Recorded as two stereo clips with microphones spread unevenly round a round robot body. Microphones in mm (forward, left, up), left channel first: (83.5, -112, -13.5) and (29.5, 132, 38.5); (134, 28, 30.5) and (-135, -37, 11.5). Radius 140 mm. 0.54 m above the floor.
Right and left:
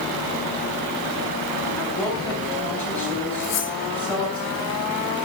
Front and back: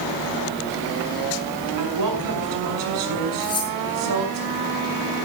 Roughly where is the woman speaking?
Behind.